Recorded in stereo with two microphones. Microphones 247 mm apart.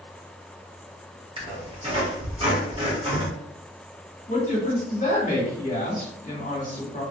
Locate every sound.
1.4 s a squeak: 25° right (ahead or behind), 1.4 m
4.3 s a woman speaking: 35° left (ahead or behind), 1.6 m